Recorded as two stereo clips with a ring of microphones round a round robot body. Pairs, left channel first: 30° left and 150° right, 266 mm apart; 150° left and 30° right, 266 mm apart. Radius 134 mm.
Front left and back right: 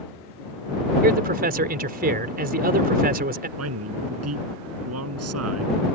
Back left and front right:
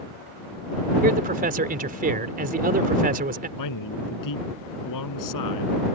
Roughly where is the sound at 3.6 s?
Behind.